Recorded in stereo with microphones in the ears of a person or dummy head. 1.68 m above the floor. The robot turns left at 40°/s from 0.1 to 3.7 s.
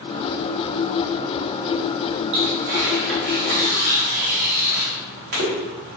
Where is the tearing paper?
35° right (ahead or behind), 1.2 m; by 6.0 s 50° right (ahead or behind), 1.2 m.